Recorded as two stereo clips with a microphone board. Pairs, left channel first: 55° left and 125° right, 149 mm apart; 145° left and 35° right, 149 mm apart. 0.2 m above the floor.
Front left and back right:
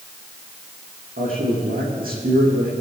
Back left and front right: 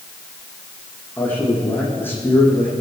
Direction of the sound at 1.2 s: 140° right.